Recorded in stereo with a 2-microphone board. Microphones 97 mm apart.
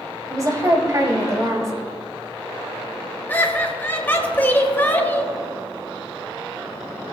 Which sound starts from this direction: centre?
Laughter, at 3.3 s.